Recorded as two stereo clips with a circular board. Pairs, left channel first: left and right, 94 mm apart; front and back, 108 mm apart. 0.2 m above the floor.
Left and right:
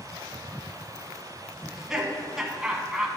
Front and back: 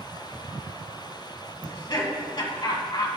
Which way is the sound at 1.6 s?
5° right.